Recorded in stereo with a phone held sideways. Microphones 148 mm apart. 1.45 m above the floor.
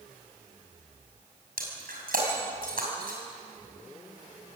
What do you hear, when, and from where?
1.6 s breaking glass: 80° right, 6 m